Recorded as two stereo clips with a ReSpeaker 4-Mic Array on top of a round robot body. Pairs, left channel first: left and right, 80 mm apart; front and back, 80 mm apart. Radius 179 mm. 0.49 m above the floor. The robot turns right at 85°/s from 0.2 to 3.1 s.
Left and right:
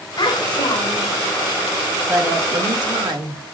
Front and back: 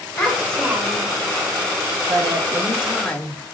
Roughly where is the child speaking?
Ahead left.